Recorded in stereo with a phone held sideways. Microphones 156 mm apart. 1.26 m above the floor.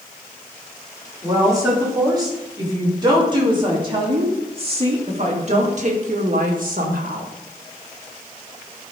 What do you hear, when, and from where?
1.2 s a woman speaking: 20° right (ahead or behind), 4 m; by 7.3 s 70° right (ahead or behind), 1.8 m